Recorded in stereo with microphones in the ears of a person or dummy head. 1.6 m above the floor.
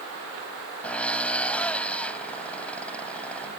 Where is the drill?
10° left (ahead or behind).